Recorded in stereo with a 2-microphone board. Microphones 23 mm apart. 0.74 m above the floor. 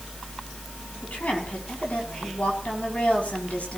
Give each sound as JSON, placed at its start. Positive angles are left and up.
{"t": 1.0, "sound": "a woman speaking", "side_deg": 75, "distance_m": 6.0}